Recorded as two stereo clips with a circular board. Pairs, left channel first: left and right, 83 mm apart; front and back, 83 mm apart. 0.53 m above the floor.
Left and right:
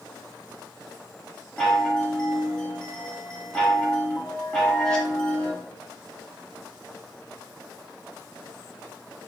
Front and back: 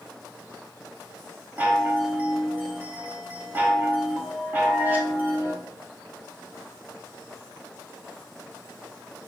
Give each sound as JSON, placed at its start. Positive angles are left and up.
{"t": 1.6, "sound": "a chime", "azimuth_deg": 160, "distance_m": 0.9}